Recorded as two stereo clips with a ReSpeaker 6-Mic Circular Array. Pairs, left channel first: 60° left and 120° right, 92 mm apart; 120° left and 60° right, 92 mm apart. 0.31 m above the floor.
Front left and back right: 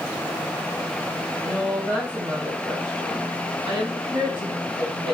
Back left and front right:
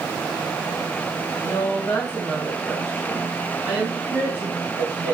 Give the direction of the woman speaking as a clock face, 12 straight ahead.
6 o'clock.